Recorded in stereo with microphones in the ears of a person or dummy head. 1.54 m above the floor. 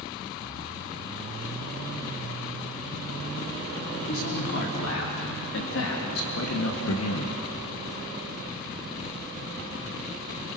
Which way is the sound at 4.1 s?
60° left (ahead or behind).